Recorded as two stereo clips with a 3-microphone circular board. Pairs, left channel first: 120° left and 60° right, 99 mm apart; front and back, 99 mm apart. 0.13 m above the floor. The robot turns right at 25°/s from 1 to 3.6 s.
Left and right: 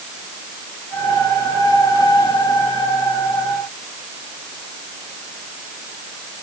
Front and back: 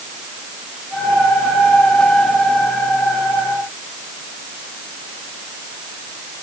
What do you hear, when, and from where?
Only background noise.